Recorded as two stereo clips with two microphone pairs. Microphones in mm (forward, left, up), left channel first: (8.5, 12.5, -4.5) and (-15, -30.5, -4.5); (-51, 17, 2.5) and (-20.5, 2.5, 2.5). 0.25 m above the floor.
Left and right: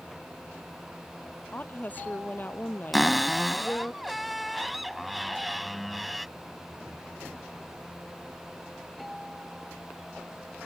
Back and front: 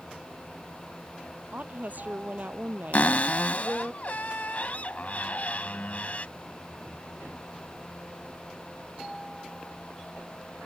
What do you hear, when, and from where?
1.5 s a woman speaking: 10° left
2.9 s a cupboard door: 155° left